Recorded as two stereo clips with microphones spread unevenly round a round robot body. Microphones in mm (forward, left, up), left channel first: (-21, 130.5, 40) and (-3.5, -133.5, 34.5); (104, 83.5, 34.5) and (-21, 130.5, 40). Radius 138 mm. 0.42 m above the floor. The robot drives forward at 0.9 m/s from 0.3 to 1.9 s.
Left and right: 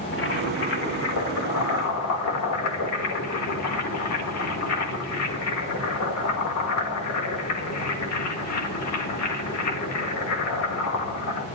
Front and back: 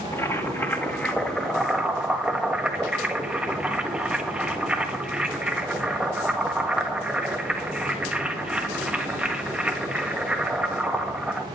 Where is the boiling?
50° left, 3 m; by 11.4 s 75° left, 2.5 m.